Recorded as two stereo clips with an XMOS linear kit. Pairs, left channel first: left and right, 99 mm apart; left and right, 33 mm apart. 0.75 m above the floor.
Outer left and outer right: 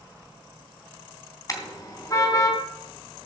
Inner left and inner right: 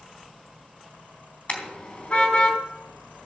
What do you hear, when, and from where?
1.5 s a car horn: 35° left (ahead or behind), 3 m